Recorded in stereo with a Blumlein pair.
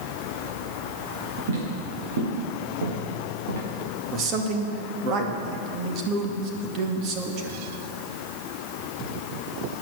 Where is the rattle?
I don't hear a rattle.